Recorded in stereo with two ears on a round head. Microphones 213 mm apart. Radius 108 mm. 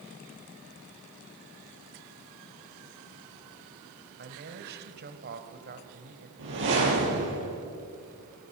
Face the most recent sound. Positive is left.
turn(degrees=-55)  # may be behind; listen again after turning